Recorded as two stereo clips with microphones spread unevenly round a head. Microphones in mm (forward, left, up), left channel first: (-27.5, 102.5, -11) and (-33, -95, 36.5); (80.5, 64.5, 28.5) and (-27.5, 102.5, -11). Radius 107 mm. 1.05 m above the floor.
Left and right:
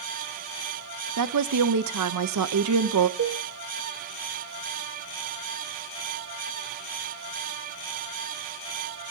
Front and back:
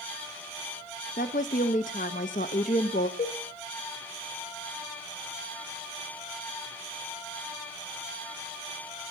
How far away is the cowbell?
About 1.2 m.